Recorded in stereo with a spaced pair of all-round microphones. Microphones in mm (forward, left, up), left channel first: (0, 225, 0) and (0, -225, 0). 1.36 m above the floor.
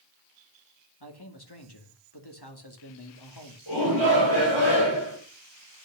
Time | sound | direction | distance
1.0 | a man speaking | 60° left (ahead or behind) | 2.5 m
3.7 | a shout | 70° left (ahead or behind) | 6.5 m